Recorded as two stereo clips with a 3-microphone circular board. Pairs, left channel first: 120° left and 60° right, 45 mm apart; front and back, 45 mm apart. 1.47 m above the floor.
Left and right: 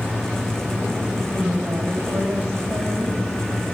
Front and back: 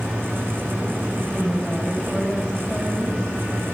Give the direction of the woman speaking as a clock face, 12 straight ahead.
2 o'clock.